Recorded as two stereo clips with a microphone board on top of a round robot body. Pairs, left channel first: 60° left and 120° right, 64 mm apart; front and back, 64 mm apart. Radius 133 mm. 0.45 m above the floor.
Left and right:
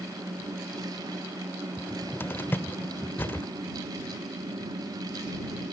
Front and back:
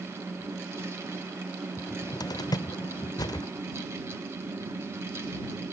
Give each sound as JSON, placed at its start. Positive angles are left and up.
{"t": 1.8, "sound": "a cupboard door", "azimuth_deg": 0}